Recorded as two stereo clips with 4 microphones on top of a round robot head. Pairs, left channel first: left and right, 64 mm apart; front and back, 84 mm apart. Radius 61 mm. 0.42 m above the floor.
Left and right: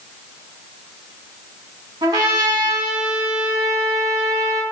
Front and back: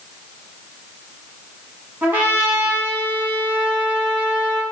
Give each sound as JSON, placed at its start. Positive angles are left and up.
{"t": 2.0, "sound": "a trumpet", "azimuth_deg": -105, "distance_m": 1.1}